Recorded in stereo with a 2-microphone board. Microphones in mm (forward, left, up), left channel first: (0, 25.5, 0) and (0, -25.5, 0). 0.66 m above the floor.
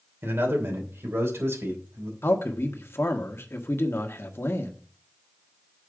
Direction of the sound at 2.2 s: 50° left (ahead or behind).